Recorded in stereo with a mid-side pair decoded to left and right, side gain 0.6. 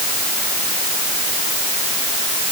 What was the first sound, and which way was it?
Only background noise.